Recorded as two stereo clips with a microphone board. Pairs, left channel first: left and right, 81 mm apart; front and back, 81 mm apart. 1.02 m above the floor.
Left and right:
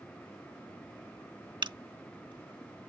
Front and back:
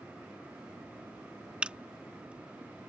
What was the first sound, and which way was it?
A camera shutter, 105° right.